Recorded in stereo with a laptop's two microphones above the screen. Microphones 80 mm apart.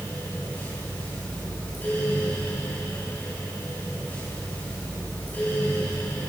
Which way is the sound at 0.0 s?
20° left (ahead or behind).